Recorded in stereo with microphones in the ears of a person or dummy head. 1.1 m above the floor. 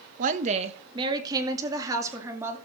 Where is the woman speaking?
40° right (ahead or behind), 0.9 m; by 2.6 s 15° right (ahead or behind), 2.5 m.